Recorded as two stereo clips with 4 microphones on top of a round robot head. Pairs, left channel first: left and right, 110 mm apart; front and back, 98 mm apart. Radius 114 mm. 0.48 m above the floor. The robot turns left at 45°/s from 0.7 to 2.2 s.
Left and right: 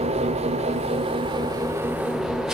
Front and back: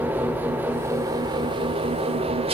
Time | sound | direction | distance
0.0 | an engine running | 110° right | 2 m